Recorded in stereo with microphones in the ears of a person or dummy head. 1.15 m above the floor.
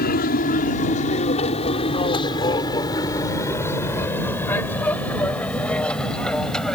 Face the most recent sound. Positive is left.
turn(degrees=5)  # may be behind; listen again after turning